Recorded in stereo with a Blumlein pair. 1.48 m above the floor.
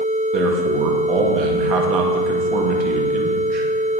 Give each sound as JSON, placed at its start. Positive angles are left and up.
{"t": 0.3, "sound": "a man speaking", "azimuth_deg": -35, "distance_m": 1.6}